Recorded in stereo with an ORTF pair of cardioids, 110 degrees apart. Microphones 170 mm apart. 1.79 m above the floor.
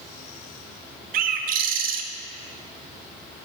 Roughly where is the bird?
Ahead right.